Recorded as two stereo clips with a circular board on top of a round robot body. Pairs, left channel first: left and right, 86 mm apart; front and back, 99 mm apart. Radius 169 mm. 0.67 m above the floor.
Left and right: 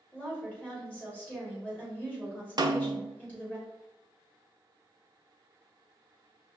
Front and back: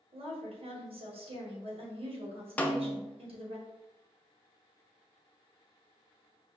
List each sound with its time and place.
0.1 s a woman speaking: 165° left, 1.7 m
2.6 s a snare drum: 70° right, 0.7 m